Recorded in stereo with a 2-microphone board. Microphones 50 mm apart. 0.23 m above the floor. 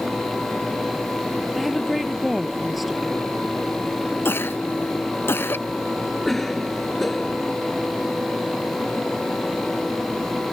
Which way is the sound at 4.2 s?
50° left (ahead or behind).